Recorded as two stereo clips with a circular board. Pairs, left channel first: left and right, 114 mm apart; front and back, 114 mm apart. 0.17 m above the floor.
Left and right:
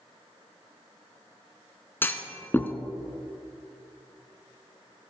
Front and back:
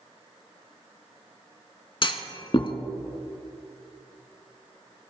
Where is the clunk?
25° left, 1.0 m.